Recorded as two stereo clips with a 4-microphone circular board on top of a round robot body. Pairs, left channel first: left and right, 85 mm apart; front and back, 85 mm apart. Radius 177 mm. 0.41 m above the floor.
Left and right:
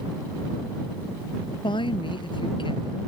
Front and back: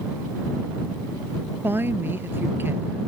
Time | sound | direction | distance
1.6 | a woman speaking | 115° left | ?